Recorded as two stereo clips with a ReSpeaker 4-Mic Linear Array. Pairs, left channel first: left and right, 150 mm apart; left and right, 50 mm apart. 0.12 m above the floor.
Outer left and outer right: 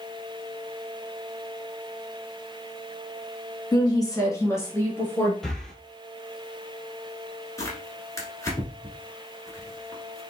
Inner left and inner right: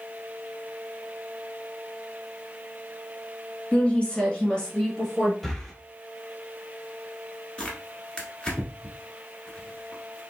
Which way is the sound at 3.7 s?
25° left (ahead or behind).